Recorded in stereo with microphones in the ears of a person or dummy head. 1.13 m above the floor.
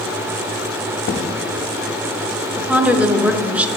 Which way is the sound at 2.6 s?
10° right (ahead or behind).